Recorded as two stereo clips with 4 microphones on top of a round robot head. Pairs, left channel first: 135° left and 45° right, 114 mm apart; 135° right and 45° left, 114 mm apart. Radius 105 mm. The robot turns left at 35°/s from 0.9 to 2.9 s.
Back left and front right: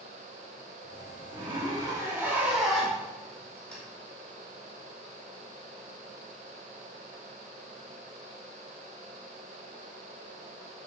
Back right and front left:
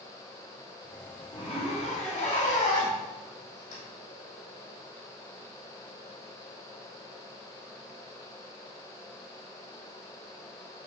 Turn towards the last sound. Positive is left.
turn(degrees=-145)